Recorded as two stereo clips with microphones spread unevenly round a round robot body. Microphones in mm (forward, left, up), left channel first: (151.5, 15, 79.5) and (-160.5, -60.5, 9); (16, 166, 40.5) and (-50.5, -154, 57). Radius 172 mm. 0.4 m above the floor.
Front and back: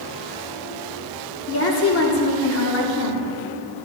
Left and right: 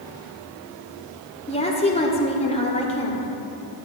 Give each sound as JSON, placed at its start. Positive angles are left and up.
{"t": 1.5, "sound": "a woman speaking", "azimuth_deg": 30, "distance_m": 1.0}